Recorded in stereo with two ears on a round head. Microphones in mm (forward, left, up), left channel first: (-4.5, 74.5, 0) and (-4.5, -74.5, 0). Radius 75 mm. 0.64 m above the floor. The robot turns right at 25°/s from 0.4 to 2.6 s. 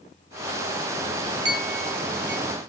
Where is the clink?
70° right (ahead or behind), 3 m; by 2.4 s 50° right (ahead or behind), 3 m.